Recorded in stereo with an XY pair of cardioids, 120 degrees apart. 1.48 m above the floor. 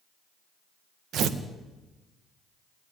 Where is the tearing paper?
60° right, 1.7 m.